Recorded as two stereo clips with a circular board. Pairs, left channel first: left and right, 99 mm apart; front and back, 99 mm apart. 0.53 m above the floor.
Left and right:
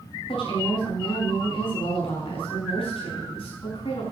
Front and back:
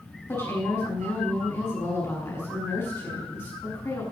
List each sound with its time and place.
0.3 s a woman speaking: 65° left, 6 m